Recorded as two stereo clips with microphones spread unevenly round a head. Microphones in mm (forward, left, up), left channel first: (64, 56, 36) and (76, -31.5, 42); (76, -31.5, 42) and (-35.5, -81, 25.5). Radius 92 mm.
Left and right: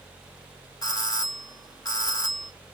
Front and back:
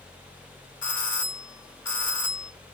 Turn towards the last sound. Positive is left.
turn(degrees=60)